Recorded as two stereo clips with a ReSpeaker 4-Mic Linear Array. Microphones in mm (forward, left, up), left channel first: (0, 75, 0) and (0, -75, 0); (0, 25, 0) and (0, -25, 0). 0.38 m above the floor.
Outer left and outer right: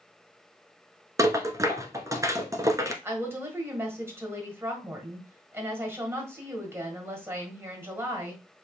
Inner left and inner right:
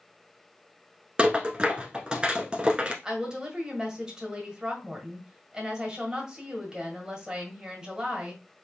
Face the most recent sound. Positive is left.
turn(degrees=-15)  # may be behind; listen again after turning